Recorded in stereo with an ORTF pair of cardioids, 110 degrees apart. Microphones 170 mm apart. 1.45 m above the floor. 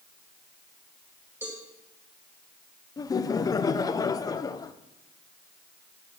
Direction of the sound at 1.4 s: 10° right.